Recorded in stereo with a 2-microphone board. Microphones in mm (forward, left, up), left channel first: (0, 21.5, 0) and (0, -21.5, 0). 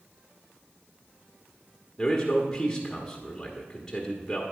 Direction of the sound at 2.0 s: 10° left (ahead or behind).